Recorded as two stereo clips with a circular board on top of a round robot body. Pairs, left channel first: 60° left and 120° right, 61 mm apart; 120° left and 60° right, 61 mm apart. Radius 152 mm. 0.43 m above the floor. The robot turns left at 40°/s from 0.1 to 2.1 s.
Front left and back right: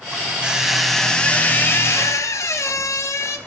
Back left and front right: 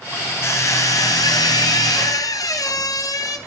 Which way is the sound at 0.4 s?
165° left.